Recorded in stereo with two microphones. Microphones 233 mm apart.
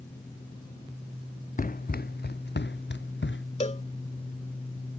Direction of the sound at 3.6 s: 30° left (ahead or behind).